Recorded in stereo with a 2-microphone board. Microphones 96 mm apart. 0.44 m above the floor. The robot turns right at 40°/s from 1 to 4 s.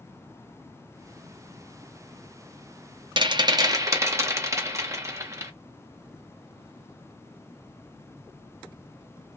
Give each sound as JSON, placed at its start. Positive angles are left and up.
{"t": 3.2, "sound": "a rattle", "azimuth_deg": -70, "distance_m": 0.7}